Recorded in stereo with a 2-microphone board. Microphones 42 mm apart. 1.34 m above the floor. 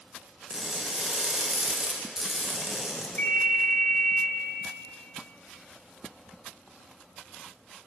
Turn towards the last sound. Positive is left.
turn(degrees=50)  # may be behind; listen again after turning